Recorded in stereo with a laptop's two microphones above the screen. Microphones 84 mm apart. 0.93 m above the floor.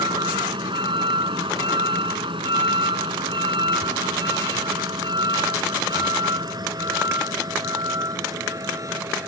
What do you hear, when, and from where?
0.0 s a vehicle: 70° right (ahead or behind); by 9.3 s 40° right (ahead or behind)